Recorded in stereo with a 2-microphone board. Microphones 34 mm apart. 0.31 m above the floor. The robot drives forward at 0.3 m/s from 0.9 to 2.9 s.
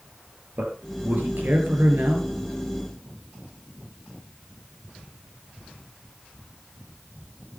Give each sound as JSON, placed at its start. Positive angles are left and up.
{"t": 0.6, "sound": "a man speaking", "side_deg": -65, "distance_m": 6.5}